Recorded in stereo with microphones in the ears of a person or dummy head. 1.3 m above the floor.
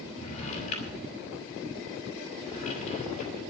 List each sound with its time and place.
0.1 s a drawer: 45° left (ahead or behind), 6 m